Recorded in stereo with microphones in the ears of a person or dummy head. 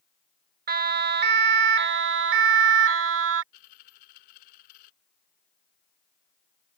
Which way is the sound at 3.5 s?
50° left (ahead or behind).